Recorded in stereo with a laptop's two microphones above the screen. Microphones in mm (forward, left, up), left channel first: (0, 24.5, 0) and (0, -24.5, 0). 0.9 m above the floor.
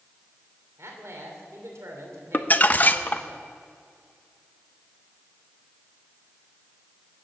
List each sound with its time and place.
0.8 s a man speaking: 75° right (ahead or behind), 3 m
2.3 s crumpling: 35° left (ahead or behind), 0.5 m